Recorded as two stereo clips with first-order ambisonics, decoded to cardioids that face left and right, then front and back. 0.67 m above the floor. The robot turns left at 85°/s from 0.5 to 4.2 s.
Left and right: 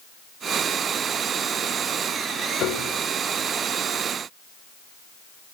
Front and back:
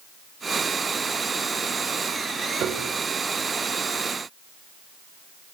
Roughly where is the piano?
Behind left.